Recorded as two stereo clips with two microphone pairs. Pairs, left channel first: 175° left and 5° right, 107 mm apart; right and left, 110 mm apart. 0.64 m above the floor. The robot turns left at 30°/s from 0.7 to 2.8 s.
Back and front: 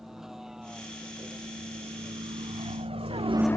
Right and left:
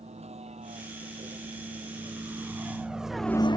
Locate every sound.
0.0 s a vehicle: 80° left; by 3.6 s 135° right